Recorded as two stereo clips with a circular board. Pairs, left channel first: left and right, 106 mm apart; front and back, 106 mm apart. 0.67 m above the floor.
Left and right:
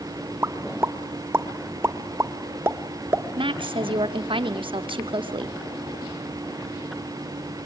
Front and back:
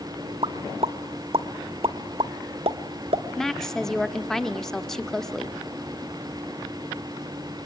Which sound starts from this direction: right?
A woman speaking, at 3.4 s.